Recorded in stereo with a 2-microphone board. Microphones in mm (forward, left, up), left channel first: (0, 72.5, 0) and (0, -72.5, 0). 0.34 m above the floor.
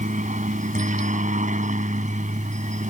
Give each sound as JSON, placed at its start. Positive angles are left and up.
{"t": 0.0, "sound": "a helicopter", "side_deg": -60}